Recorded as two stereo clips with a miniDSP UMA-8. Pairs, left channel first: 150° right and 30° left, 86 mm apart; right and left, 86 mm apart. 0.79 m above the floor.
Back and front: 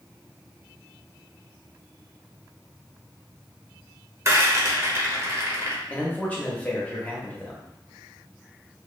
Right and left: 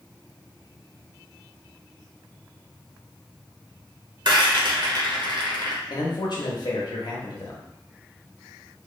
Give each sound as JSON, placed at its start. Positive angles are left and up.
{"t": 4.2, "sound": "a rattle", "azimuth_deg": 80, "distance_m": 0.7}
{"t": 5.9, "sound": "a man speaking", "azimuth_deg": -80, "distance_m": 0.8}